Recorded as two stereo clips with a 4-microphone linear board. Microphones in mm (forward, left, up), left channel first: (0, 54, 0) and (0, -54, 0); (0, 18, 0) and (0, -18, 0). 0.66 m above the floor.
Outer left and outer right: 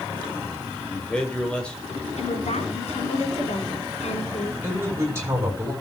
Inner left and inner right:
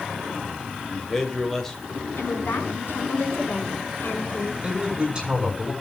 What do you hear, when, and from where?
0.9 s a man speaking: 10° left (ahead or behind), 3 m
2.2 s a woman speaking: 85° left, 6 m
4.6 s a man speaking: 25° right (ahead or behind), 7 m